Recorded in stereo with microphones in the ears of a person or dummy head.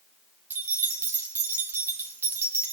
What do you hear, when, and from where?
0.5 s keys jangling: 15° right (ahead or behind), 1.0 m